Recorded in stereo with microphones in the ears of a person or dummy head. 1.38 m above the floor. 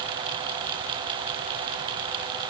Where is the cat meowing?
I don't hear a cat meowing.